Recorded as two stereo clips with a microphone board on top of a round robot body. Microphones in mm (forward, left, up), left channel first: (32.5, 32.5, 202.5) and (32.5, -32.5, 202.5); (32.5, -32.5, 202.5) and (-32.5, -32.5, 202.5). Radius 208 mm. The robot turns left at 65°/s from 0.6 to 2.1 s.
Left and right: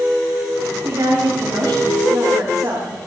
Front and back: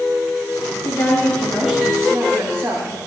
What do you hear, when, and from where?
0.8 s a woman speaking: 45° right, 4.5 m; by 3.0 s 125° right, 4.5 m